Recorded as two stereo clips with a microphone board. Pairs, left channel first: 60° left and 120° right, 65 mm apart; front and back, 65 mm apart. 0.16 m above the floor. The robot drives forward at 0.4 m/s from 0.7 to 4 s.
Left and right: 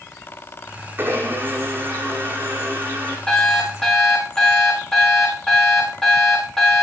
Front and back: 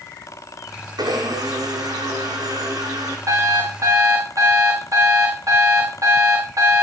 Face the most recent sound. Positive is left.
turn(degrees=140)